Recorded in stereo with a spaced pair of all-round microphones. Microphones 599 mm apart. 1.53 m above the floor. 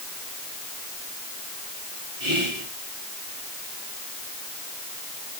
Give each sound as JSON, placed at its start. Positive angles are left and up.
{"t": 2.2, "sound": "whispering", "side_deg": -50, "distance_m": 3.0}